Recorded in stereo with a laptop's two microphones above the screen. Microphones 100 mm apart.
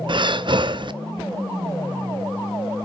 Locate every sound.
0.1 s breathing: 50° right (ahead or behind), 0.7 m